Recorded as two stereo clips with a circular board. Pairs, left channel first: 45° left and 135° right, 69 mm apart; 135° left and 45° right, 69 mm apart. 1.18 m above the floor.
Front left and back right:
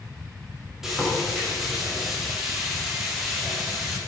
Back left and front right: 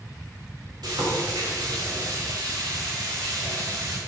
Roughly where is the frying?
Ahead right.